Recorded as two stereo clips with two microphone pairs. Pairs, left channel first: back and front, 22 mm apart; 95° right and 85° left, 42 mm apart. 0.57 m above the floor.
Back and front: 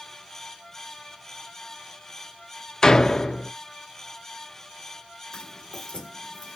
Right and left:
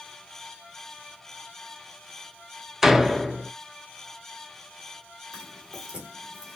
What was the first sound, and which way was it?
A door slam, 170° left.